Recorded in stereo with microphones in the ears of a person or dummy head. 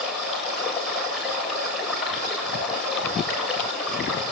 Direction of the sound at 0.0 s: Centre (ahead or behind).